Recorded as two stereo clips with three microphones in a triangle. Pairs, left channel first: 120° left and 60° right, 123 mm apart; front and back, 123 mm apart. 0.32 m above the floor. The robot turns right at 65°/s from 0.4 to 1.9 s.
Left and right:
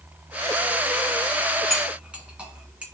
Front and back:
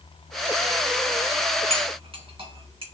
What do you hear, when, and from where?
1.7 s cutlery clinking: 155° right, 2.0 m; by 2.8 s 140° right, 2.0 m